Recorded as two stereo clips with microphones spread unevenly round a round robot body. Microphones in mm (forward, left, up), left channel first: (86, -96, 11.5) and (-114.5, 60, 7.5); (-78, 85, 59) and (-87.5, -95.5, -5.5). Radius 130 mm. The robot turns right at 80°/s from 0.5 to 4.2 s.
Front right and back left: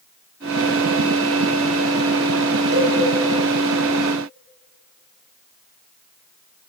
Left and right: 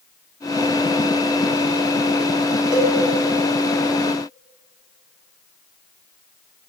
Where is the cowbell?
175° right, 6 m; by 2.9 s 160° right, 6 m.